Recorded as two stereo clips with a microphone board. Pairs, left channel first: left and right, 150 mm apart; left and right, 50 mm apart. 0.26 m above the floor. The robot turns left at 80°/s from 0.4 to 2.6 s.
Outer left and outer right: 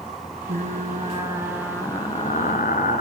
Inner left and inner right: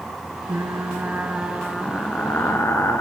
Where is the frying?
90° right, 1.1 m; by 3.0 s 100° left, 1.1 m.